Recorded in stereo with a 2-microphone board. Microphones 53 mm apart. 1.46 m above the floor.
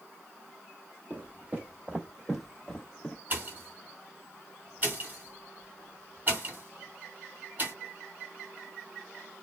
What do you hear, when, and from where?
1.1 s footsteps: 30° right (ahead or behind), 1.7 m; by 3.1 s 20° left (ahead or behind), 1.5 m
3.3 s a pop: 35° right (ahead or behind), 1.6 m